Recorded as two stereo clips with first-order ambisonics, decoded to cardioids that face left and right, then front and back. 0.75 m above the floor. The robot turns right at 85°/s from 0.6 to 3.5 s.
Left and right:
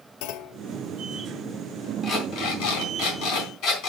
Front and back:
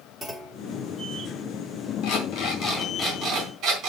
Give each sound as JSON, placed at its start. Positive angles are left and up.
{"t": 0.2, "sound": "a clunk", "azimuth_deg": 100, "distance_m": 0.9}
{"t": 2.0, "sound": "an alarm clock", "azimuth_deg": 0, "distance_m": 3.5}